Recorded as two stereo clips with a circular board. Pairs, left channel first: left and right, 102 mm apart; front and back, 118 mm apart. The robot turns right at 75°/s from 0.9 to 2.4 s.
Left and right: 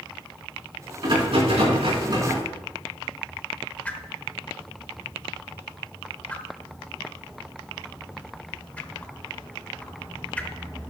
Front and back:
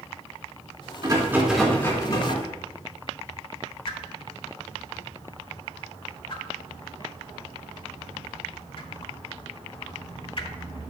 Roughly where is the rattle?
Behind right.